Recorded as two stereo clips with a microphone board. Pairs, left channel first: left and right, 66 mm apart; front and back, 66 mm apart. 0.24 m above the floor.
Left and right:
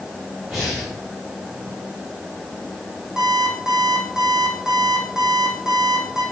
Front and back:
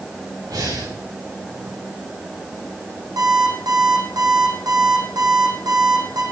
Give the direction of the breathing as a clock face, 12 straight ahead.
6 o'clock.